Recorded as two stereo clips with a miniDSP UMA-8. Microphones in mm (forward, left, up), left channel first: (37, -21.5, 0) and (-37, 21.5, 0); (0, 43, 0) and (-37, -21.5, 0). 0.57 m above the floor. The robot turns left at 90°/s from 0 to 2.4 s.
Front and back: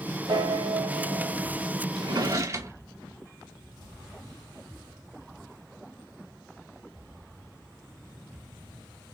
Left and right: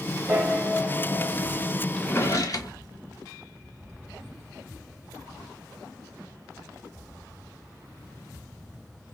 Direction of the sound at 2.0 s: 135° left.